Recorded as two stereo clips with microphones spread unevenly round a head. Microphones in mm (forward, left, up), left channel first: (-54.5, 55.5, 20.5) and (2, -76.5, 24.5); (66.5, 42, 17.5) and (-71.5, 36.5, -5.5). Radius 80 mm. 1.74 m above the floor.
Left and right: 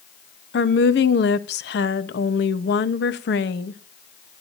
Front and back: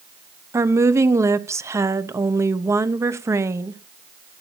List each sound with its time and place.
0.5 s a woman speaking: 110° left, 1.0 m